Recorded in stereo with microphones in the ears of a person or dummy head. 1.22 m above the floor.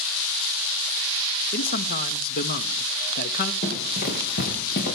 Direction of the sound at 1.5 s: 55° left (ahead or behind).